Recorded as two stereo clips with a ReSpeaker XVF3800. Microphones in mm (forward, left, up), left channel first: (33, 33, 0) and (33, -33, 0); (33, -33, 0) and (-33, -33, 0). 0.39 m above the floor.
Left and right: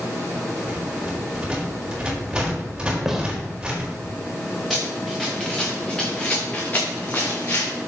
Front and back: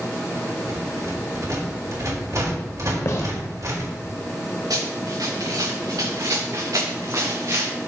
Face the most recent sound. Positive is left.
turn(degrees=135)